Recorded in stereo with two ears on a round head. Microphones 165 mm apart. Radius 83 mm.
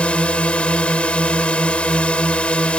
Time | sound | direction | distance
0.0 | a drone | 5° left (ahead or behind) | ?